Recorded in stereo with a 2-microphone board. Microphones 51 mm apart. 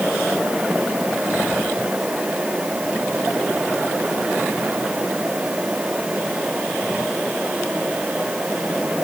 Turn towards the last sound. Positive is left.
No sound to turn to.